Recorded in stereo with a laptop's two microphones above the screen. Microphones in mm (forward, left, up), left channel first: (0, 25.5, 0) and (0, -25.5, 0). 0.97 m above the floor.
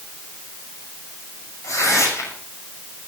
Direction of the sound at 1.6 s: 75° left (ahead or behind).